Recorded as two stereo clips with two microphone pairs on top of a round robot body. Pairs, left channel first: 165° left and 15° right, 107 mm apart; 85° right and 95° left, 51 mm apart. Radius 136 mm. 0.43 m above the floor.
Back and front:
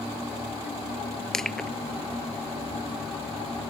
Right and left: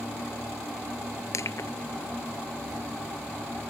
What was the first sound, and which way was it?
Crushing, 110° right.